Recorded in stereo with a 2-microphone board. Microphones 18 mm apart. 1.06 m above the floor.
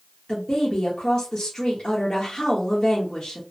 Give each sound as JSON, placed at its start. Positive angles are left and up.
{"t": 0.3, "sound": "a woman speaking", "side_deg": 65, "distance_m": 1.0}